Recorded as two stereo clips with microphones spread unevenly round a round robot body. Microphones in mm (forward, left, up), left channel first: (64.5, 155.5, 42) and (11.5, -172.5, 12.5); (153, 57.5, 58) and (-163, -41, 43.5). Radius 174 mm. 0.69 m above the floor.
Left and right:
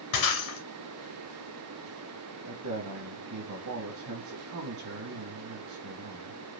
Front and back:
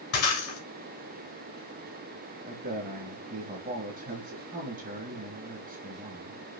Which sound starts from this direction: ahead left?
Breaking glass, at 0.1 s.